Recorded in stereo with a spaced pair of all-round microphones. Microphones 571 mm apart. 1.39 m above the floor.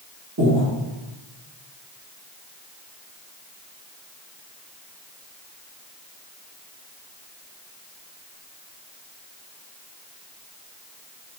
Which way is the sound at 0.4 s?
30° right (ahead or behind).